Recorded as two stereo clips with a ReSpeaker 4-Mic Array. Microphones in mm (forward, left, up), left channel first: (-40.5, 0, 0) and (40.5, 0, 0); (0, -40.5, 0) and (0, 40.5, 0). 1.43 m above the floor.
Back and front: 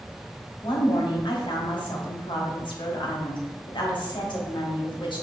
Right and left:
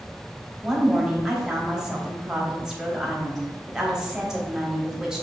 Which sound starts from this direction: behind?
A woman speaking, at 0.6 s.